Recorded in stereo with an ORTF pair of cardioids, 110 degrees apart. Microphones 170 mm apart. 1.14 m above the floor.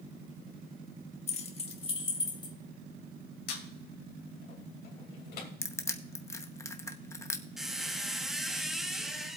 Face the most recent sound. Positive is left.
turn(degrees=0)